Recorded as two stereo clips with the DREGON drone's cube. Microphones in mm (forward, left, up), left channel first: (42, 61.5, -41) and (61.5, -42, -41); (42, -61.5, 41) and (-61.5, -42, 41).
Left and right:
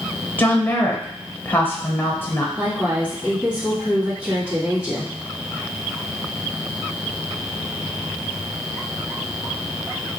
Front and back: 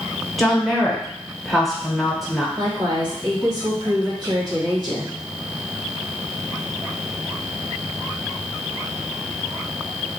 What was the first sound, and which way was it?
A woman speaking, 80° left.